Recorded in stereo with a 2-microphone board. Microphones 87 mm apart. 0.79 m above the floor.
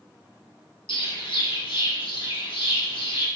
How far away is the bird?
About 0.9 m.